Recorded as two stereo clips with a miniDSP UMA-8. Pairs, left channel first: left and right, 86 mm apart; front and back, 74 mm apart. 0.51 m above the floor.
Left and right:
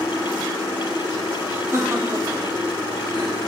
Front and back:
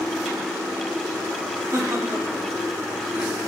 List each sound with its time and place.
1.7 s laughter: 145° right, 3 m; by 3.4 s 115° right, 2.0 m